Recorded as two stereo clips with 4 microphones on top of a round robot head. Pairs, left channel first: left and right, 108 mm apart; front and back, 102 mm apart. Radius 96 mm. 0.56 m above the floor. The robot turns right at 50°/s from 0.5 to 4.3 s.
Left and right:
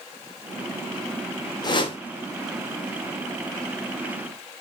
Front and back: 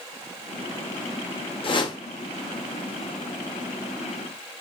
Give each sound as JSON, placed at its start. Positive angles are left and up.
{"t": 1.6, "sound": "a whoosh", "azimuth_deg": 35, "distance_m": 0.7}